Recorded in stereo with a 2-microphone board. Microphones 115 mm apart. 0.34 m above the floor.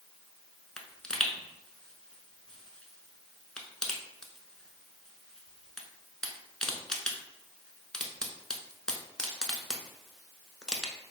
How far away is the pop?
About 0.5 m.